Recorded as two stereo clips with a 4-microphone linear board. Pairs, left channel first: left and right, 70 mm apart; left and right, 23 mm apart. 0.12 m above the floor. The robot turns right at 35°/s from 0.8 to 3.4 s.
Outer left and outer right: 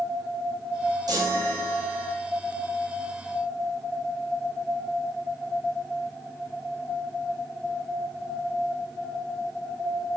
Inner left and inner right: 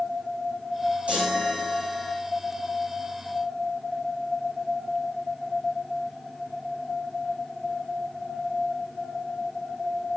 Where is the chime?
110° right, 4 m; by 2.2 s 70° right, 4 m.